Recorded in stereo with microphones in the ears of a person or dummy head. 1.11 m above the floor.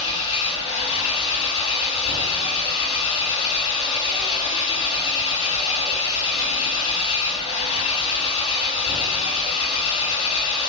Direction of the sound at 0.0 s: 30° left (ahead or behind).